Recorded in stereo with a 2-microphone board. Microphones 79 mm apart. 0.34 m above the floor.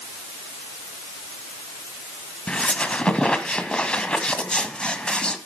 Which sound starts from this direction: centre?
A squeak, at 2.5 s.